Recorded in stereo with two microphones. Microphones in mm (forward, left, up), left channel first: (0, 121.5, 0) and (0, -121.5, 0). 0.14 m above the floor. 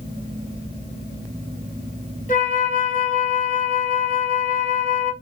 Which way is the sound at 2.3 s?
35° left (ahead or behind).